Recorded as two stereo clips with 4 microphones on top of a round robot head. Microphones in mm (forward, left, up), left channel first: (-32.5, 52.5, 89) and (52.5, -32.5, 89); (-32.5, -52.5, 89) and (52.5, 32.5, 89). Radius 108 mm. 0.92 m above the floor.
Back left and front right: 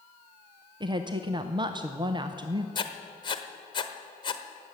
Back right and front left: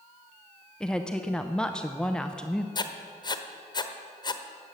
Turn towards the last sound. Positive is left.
turn(degrees=180)